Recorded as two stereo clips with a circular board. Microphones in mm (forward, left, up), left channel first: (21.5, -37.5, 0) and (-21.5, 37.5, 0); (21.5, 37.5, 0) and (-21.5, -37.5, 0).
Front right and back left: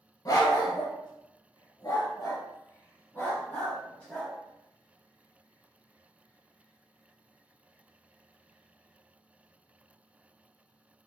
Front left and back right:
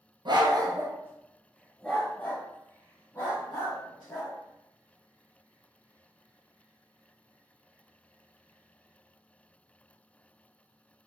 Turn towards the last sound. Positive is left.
turn(degrees=15)